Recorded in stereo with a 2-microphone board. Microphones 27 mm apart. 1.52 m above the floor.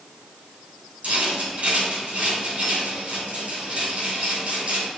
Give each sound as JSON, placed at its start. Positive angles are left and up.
{"t": 1.0, "sound": "a rattle", "side_deg": -60, "distance_m": 2.5}